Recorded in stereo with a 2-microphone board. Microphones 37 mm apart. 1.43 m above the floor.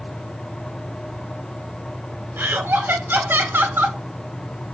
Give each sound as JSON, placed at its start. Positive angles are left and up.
{"t": 2.4, "sound": "laughter", "side_deg": -65, "distance_m": 0.7}